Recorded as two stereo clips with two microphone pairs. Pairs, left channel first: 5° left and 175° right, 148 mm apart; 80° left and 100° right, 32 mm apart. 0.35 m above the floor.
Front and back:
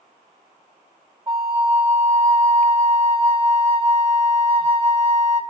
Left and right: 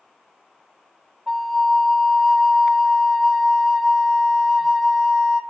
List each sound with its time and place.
1.3 s a flute: 160° left, 1.1 m